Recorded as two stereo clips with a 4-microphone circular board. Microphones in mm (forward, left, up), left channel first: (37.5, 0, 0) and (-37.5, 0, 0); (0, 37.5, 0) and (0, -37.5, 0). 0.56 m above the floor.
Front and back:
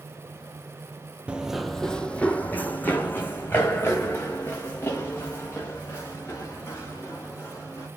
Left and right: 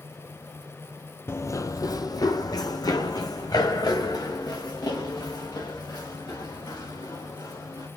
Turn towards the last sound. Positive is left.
turn(degrees=55)